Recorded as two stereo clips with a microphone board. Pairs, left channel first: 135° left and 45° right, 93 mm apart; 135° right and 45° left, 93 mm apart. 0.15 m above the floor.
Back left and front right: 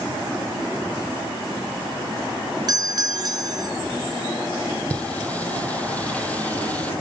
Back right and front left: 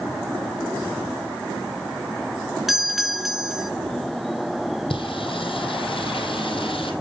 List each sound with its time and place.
2.7 s a doorbell: 40° right, 2 m
4.9 s singing: 150° right, 3 m